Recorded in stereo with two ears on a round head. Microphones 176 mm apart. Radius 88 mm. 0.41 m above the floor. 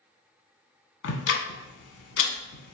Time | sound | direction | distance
1.0 | ticking | 60° left (ahead or behind) | 0.9 m